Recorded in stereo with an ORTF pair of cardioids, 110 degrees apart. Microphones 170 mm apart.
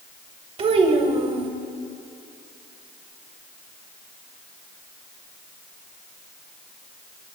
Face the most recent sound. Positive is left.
turn(degrees=-40)